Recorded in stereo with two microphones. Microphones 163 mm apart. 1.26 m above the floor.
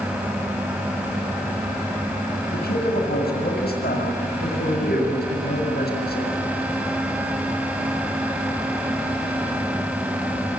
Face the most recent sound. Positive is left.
turn(degrees=80)